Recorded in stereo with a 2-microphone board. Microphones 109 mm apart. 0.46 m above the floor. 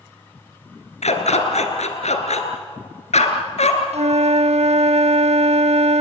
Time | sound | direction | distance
1.0 | a dog barking | 80° left | 2.5 m
3.9 | a flute | 70° right (ahead or behind) | 0.5 m